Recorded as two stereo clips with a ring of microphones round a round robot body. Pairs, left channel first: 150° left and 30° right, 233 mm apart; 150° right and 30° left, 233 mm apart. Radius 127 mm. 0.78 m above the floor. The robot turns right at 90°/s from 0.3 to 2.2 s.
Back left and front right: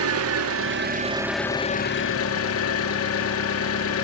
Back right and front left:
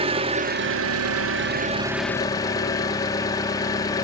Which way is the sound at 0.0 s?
35° right.